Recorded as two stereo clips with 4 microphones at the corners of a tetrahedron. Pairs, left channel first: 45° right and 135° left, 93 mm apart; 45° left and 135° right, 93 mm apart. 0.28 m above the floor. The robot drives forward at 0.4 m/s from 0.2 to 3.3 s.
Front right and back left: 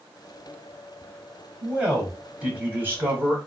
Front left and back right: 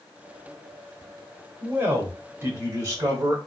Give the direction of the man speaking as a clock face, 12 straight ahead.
5 o'clock.